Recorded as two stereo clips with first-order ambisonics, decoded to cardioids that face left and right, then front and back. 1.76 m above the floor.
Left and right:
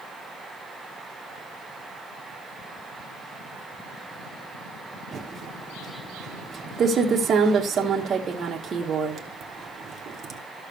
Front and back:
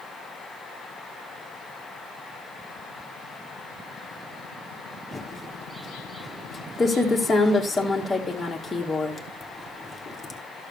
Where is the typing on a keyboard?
65° right, 1.0 m.